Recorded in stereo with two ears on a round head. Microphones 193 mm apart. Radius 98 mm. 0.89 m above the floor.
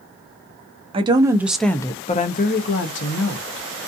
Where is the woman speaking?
25° right (ahead or behind), 0.8 m; by 3.7 s 75° left (ahead or behind), 1.2 m.